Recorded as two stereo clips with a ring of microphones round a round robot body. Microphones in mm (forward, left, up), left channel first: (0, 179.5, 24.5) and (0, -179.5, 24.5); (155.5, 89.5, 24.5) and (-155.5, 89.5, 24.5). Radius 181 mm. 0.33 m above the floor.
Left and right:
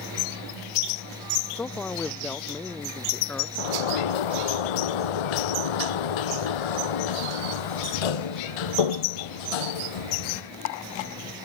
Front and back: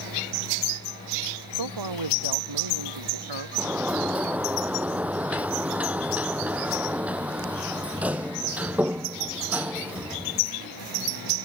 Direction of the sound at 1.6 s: 175° left.